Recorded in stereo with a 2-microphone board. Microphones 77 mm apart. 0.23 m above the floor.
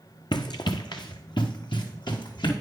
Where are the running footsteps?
75° left (ahead or behind), 0.7 m; by 2.5 s 80° left, 2.5 m.